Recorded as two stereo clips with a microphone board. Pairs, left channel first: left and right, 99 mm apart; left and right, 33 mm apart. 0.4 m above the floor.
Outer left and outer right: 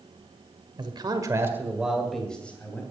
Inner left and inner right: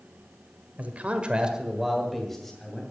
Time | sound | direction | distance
0.8 | a man speaking | 50° right (ahead or behind) | 1.7 m